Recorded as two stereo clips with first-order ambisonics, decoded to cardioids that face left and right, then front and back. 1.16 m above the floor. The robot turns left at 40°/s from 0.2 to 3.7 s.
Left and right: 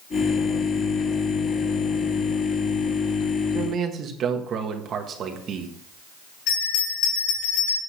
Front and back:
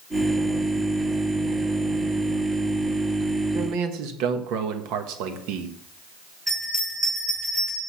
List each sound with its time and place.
3.5 s a man speaking: 145° right, 1.3 m; by 5.7 s 150° right, 1.3 m
6.5 s a bell: 105° left, 6.5 m